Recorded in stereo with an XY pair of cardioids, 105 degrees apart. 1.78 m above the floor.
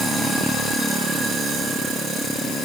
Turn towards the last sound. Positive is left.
No sound to turn to.